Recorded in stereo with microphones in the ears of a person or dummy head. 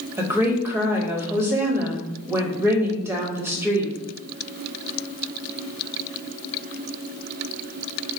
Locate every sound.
0.2 s a woman speaking: 10° right (ahead or behind), 0.6 m